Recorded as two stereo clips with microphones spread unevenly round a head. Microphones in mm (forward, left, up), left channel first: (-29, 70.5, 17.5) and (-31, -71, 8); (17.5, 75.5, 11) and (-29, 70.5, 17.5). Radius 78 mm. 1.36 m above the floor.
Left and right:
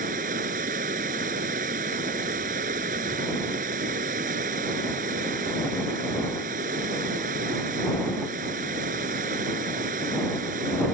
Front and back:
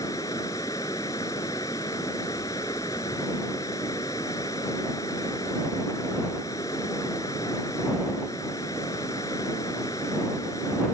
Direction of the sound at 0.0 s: 45° right.